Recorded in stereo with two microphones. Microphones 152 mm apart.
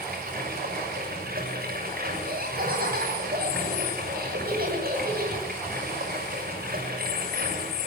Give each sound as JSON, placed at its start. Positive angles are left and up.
{"t": 0.0, "sound": "running water", "side_deg": -85, "distance_m": 6.5}
{"t": 2.2, "sound": "laughter", "side_deg": -90, "distance_m": 9.0}